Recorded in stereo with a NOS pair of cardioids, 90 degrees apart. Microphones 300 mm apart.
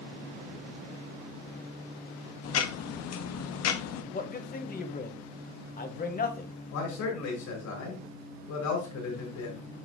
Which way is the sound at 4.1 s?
30° left.